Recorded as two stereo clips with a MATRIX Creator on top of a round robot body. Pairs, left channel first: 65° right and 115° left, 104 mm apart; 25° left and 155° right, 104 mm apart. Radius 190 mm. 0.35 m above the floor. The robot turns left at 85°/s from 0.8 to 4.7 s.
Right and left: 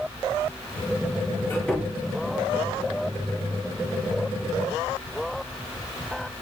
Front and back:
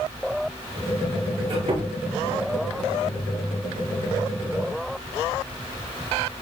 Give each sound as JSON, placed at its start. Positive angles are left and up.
{"t": 1.4, "sound": "a squeak", "azimuth_deg": -125, "distance_m": 6.5}